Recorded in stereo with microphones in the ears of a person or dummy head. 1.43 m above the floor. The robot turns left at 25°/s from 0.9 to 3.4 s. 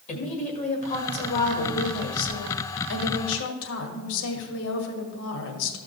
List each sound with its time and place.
0.1 s a woman speaking: 140° left, 2.0 m; by 5.8 s 75° left, 2.0 m